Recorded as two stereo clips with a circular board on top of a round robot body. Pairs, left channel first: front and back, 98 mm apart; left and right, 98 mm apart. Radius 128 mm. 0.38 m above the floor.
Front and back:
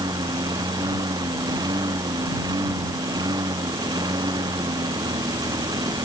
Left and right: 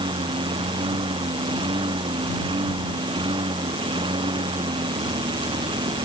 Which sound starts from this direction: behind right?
A lawn mower, at 0.0 s.